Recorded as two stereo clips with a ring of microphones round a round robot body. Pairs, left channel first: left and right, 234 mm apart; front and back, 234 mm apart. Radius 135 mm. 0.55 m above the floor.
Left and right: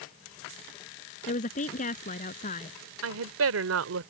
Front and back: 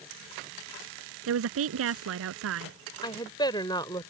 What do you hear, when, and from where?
1.3 s a woman speaking: 155° left
3.0 s a woman speaking: 75° right